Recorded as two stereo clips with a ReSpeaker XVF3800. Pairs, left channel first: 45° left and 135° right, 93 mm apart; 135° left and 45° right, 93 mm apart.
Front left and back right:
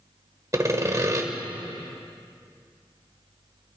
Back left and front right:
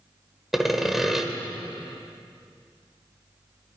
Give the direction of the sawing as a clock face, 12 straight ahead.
4 o'clock.